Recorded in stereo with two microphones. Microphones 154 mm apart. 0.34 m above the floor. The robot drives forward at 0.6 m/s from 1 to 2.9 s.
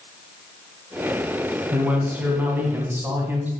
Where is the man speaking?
10° right (ahead or behind), 2.5 m; by 3.5 s 15° right (ahead or behind), 1.9 m.